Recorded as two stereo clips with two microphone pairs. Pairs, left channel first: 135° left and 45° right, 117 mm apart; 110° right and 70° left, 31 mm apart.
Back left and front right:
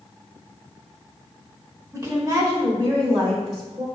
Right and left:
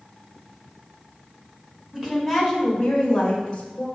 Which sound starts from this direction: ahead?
A woman speaking, at 1.9 s.